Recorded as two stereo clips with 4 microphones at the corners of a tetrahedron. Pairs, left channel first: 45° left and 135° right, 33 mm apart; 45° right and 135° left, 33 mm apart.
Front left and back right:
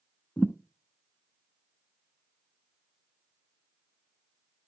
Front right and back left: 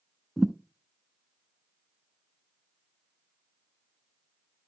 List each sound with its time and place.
0.4 s a thud: 55° left, 0.8 m